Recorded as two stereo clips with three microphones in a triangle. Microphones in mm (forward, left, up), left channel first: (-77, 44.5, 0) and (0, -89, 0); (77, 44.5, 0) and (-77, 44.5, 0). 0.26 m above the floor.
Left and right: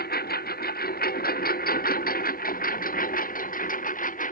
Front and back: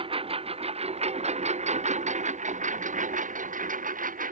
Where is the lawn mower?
125° left; by 4.3 s 150° left.